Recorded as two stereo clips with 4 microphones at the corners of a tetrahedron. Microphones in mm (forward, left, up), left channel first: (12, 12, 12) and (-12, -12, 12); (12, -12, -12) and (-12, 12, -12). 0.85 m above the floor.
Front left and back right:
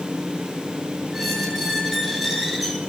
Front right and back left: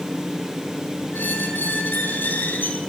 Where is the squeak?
50° right, 8 m.